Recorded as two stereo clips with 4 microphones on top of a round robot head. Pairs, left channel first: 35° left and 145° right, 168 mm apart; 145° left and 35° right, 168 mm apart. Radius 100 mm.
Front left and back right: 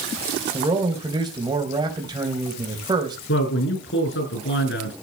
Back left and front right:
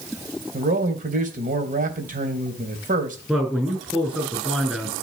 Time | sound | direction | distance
0.5 | a man speaking | 75° right | 3.5 m
3.3 | a man speaking | 50° left | 7 m